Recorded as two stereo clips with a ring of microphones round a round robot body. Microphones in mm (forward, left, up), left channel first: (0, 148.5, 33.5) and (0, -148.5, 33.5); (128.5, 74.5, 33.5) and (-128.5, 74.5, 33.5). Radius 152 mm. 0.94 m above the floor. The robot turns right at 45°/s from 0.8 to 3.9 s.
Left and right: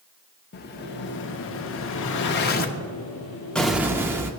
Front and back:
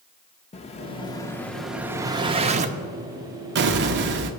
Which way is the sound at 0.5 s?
50° left.